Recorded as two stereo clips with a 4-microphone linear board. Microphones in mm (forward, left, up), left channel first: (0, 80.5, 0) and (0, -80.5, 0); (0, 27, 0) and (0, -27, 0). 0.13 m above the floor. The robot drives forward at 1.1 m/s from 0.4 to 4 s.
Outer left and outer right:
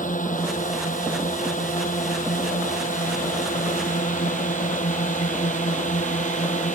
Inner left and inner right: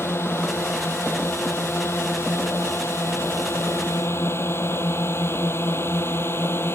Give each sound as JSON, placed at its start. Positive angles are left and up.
{"t": 0.0, "sound": "a drone", "side_deg": 55}